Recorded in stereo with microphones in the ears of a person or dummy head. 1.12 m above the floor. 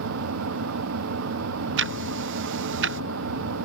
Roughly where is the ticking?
Right.